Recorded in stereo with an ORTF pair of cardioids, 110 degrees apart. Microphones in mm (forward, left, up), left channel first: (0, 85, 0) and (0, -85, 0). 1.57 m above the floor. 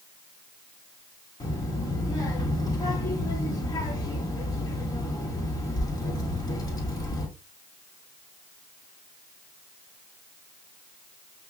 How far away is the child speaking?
About 1.9 m.